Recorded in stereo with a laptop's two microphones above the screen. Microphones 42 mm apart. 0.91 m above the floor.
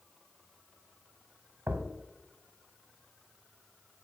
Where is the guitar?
No guitar in this recording.